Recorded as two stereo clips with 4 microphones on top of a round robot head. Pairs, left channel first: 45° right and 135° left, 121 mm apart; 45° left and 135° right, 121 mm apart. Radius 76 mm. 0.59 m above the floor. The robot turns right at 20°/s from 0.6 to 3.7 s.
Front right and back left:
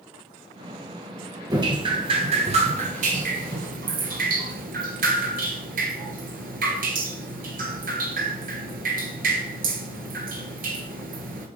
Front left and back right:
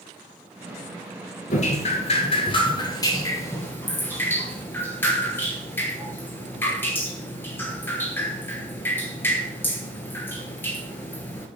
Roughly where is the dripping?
Left.